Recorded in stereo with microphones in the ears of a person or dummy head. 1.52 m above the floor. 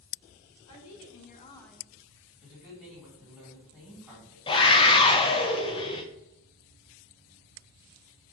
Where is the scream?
20° left (ahead or behind), 0.5 m.